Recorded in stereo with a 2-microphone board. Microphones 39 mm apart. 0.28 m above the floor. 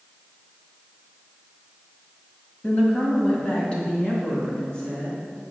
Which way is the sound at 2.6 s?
25° left (ahead or behind).